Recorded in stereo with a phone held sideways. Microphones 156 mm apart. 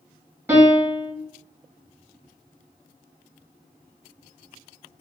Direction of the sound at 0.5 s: 15° right (ahead or behind).